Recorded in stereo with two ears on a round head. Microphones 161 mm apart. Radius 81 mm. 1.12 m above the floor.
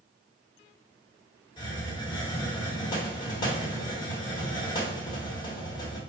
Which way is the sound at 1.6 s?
25° left (ahead or behind).